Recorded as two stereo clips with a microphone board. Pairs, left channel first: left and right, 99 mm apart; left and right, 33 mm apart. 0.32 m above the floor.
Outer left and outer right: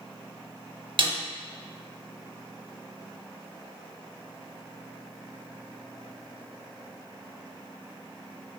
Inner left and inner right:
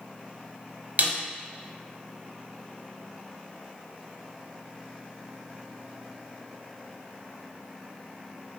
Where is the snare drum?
55° right (ahead or behind), 0.6 m.